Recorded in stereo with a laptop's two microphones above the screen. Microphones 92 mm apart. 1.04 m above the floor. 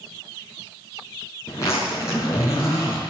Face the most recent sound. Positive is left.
turn(degrees=35)  # may be behind; listen again after turning